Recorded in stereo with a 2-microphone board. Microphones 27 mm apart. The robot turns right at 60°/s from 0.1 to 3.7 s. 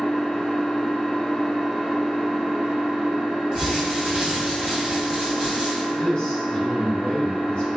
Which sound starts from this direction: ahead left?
An engine running, at 0.0 s.